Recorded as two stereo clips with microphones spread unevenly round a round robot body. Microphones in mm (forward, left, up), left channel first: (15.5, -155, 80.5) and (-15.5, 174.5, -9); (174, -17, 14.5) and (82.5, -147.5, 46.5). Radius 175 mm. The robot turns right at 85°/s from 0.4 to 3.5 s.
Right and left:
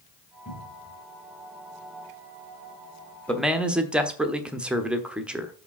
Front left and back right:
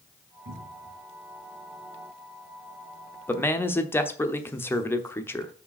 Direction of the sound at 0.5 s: 145° right.